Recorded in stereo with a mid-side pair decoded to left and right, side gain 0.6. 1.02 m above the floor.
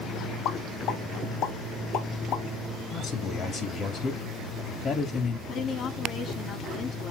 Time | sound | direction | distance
0.5 | a pop | 65° left | 2.5 m
2.9 | a man speaking | 50° left | 1.9 m
5.5 | a woman speaking | 50° left | 2 m